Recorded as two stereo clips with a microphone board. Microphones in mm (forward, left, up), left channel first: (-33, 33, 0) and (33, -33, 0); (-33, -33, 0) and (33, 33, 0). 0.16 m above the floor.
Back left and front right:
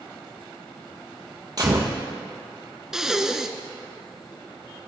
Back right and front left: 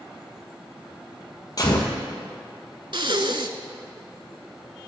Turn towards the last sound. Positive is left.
turn(degrees=40)